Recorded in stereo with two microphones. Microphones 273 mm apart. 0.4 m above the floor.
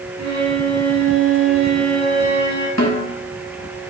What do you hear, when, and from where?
0.2 s a violin: 85° right, 2.5 m
2.8 s a snare drum: 70° left (ahead or behind), 1.4 m